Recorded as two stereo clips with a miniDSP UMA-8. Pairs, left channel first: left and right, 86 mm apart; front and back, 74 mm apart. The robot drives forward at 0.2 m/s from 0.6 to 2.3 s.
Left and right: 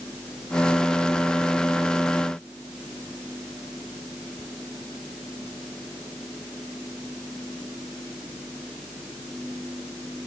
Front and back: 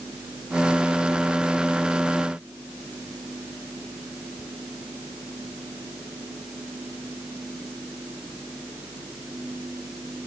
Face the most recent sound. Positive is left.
No sound to turn to.